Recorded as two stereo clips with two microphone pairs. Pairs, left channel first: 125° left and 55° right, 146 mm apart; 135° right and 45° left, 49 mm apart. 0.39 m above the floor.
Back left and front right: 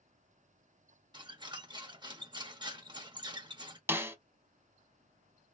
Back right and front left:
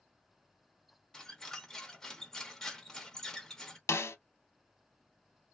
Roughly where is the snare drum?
Behind right.